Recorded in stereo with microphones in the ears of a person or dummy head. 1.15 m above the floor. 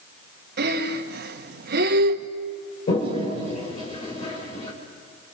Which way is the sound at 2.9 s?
40° left (ahead or behind).